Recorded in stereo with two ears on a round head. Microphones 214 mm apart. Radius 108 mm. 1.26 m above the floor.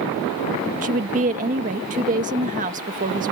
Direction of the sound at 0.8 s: 30° right (ahead or behind).